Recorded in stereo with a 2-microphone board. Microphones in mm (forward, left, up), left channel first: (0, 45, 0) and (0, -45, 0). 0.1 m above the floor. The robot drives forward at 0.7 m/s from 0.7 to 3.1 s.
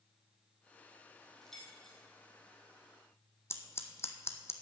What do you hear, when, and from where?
1.4 s keys jangling: 5° left (ahead or behind), 2.5 m
3.5 s scissors: 30° left (ahead or behind), 1.0 m